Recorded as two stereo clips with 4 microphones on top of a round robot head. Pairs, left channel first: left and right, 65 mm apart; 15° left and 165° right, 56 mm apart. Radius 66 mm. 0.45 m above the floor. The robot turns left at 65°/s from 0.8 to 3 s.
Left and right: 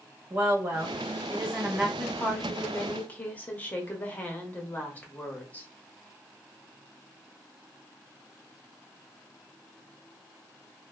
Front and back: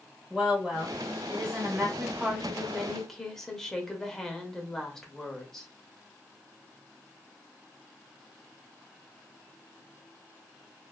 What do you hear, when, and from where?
0.3 s a woman speaking: 90° right, 0.8 m; by 1.9 s 155° right, 0.8 m
2.0 s a woman speaking: 150° left, 0.8 m; by 5.7 s 85° left, 0.8 m